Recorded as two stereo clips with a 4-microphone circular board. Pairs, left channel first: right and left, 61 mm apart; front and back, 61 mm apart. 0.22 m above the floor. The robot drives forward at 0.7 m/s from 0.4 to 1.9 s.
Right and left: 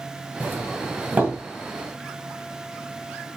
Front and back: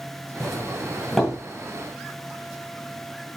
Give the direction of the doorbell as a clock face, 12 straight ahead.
10 o'clock.